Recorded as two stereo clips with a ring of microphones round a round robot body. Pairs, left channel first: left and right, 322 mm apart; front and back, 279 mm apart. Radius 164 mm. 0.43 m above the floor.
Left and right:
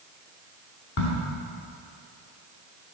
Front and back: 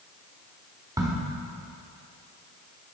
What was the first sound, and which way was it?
A crack, 105° left.